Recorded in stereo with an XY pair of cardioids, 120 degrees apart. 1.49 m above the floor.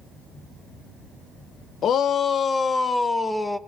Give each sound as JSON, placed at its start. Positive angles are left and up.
{"t": 1.8, "sound": "a shout", "azimuth_deg": 55, "distance_m": 1.0}